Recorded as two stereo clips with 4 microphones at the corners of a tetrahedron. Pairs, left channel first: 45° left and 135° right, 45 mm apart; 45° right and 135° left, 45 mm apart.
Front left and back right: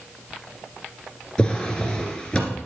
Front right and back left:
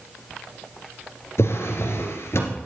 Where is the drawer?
25° right, 2.5 m.